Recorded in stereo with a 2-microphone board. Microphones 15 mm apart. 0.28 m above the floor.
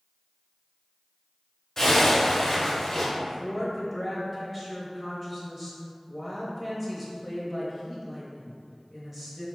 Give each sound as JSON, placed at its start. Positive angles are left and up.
{"t": 1.8, "sound": "a zipper", "side_deg": 25, "distance_m": 1.2}
{"t": 3.1, "sound": "a woman speaking", "side_deg": -15, "distance_m": 0.9}